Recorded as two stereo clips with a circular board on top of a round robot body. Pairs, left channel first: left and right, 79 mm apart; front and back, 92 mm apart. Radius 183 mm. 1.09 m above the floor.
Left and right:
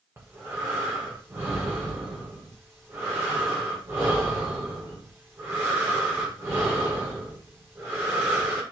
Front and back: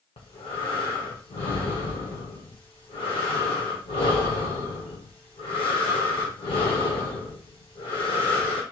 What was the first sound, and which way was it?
Breathing, 30° right.